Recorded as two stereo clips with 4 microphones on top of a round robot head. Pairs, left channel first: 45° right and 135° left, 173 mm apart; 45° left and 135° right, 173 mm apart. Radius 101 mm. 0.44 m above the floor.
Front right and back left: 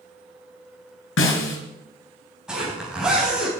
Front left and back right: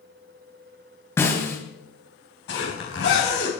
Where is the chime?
I don't hear a chime.